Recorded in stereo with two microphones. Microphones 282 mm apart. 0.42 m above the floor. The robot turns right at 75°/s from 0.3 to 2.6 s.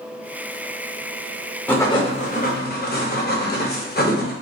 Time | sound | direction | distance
1.7 | writing | 10° left | 0.6 m